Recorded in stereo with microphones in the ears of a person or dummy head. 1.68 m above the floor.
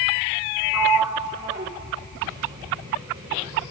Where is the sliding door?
15° right (ahead or behind), 0.9 m.